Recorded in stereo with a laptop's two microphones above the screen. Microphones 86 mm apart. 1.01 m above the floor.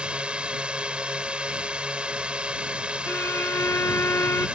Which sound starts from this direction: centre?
A drone, at 0.0 s.